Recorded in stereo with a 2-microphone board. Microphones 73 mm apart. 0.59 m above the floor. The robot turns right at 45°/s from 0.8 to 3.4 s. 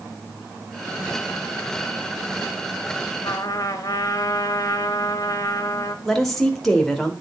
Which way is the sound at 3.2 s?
55° left (ahead or behind).